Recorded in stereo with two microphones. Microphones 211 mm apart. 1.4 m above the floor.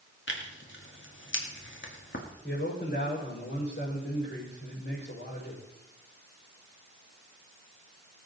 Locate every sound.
0.3 s tearing paper: 65° left (ahead or behind), 2.0 m
2.4 s a man speaking: 60° left (ahead or behind), 5.5 m